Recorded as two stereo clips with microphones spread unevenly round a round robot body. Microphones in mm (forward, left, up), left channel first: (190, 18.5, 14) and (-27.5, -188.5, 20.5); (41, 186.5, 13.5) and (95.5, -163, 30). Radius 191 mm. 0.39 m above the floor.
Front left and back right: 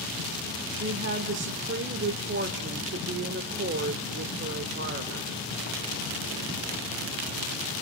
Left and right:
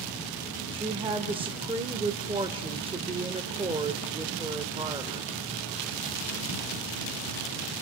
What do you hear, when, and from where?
0.7 s a woman speaking: 150° right, 1.2 m